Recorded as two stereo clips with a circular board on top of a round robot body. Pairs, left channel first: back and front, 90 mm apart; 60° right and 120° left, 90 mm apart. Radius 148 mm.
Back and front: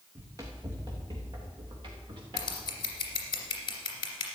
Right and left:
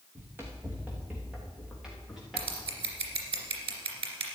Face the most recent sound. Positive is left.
turn(degrees=140)